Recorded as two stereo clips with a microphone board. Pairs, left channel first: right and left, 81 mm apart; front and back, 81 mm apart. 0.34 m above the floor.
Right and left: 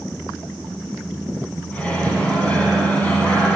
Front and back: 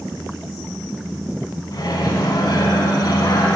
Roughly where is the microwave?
Ahead.